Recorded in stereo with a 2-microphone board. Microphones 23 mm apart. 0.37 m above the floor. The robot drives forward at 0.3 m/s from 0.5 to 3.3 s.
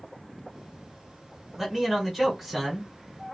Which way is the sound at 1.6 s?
Centre (ahead or behind).